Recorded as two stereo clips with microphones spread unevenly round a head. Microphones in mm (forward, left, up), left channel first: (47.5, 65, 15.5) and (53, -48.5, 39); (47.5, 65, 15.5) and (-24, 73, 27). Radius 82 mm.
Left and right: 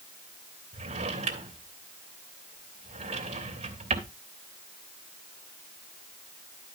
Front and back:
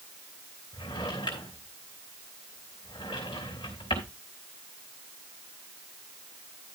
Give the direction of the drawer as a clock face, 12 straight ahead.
2 o'clock.